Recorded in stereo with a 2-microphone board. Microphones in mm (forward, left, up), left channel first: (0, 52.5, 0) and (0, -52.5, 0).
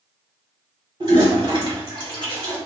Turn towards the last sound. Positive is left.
turn(degrees=-50)  # may be behind; listen again after turning